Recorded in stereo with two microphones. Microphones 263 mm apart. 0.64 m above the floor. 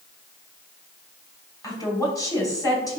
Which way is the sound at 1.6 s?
15° left (ahead or behind).